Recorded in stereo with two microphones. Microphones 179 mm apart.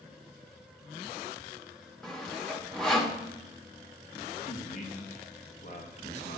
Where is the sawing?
5° left (ahead or behind), 1.1 m.